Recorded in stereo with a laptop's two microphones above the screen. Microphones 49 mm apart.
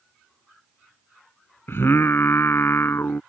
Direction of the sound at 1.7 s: 55° left (ahead or behind).